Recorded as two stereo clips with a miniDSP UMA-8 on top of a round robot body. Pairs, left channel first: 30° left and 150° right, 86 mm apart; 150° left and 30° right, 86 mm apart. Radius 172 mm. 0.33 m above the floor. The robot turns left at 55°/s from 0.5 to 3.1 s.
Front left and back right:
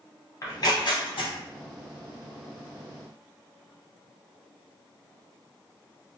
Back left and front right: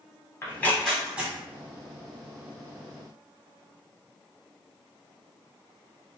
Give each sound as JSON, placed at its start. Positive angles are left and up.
{"t": 0.4, "sound": "tearing paper", "azimuth_deg": 85, "distance_m": 0.8}